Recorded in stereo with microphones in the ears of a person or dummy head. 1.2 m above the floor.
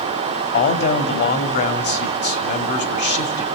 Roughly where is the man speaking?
Left.